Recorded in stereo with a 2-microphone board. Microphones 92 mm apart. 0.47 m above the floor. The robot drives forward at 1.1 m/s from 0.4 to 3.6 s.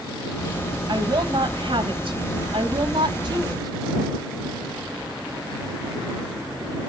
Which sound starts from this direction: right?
A woman speaking, at 0.9 s.